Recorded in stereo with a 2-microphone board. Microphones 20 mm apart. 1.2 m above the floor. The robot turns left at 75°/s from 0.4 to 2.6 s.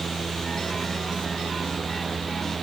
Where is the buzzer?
No buzzer in this recording.